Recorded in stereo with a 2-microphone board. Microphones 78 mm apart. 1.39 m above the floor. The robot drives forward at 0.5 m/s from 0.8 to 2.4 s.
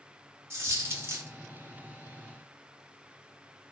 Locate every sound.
0.5 s a dropped coin: 35° right (ahead or behind), 1.0 m; by 1.3 s 30° right (ahead or behind), 1.0 m